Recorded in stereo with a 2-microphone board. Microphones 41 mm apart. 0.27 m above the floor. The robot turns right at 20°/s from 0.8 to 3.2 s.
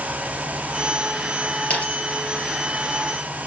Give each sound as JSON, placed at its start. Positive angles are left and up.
{"t": 1.7, "sound": "a dropped coin", "side_deg": 35, "distance_m": 3.0}